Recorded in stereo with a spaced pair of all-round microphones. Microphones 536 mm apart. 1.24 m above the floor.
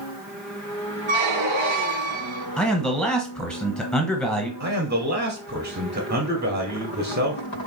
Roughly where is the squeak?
Right.